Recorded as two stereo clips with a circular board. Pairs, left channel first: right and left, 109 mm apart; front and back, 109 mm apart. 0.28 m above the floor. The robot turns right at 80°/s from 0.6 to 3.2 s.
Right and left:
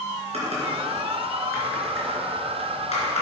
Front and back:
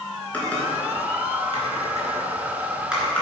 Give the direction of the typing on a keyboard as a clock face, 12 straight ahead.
9 o'clock.